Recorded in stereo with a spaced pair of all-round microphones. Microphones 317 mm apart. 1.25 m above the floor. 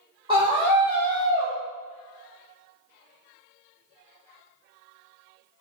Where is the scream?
15° right (ahead or behind), 0.6 m.